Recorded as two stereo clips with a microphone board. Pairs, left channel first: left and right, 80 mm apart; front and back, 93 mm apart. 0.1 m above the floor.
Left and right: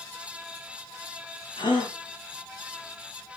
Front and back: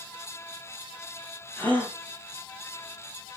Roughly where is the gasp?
Left.